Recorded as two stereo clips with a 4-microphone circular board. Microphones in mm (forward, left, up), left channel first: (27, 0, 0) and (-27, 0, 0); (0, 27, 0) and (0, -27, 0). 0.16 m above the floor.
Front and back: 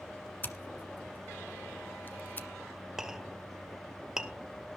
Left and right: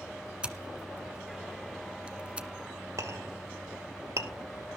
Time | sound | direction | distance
0.4 | scissors | 30° right | 1.6 m
3.0 | a clink | 100° right | 2 m